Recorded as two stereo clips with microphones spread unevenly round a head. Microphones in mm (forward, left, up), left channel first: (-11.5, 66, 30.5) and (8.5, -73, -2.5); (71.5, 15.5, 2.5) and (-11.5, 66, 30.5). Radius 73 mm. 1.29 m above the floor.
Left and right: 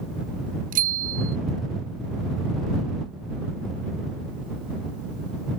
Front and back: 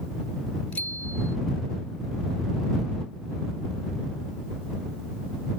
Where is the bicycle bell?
115° right.